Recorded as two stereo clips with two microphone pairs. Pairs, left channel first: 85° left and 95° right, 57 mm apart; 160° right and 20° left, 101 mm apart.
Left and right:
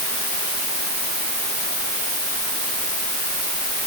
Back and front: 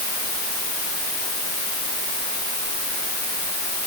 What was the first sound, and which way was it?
Only background noise.